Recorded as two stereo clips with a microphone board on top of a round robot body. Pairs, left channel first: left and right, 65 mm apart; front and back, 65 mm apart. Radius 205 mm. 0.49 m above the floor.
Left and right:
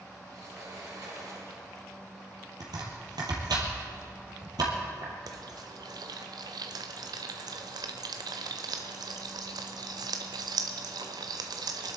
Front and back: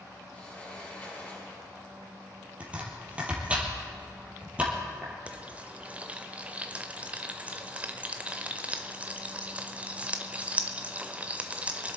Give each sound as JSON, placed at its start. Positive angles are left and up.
{"t": 0.3, "sound": "a sliding door", "azimuth_deg": -65, "distance_m": 5.5}
{"t": 2.6, "sound": "chopping", "azimuth_deg": -110, "distance_m": 3.0}
{"t": 5.3, "sound": "frying", "azimuth_deg": -110, "distance_m": 0.5}